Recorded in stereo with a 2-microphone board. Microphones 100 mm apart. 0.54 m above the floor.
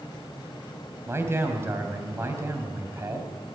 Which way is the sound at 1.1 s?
25° right (ahead or behind).